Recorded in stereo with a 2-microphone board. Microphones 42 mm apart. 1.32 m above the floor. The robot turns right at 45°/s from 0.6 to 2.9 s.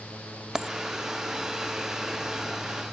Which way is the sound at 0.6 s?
15° right (ahead or behind).